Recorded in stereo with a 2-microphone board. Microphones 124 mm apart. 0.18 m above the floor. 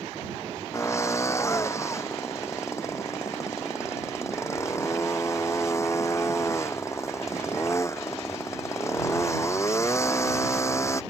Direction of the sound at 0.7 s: 25° left (ahead or behind).